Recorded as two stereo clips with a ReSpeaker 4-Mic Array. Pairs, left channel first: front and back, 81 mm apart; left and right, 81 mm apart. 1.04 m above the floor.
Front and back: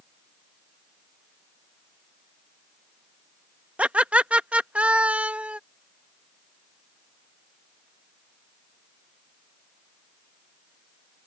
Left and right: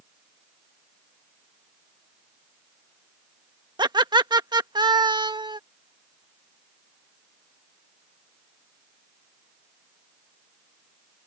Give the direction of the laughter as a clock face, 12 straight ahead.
4 o'clock.